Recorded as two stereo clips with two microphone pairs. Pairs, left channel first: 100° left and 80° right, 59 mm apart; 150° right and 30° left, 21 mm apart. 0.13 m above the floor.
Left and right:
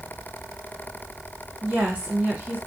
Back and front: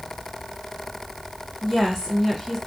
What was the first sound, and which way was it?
A woman speaking, 85° right.